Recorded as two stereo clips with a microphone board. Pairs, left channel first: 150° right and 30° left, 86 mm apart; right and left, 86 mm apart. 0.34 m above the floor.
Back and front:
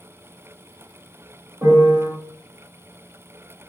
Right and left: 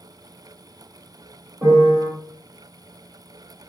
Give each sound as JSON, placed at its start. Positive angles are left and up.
{"t": 1.6, "sound": "a piano", "azimuth_deg": 65, "distance_m": 1.6}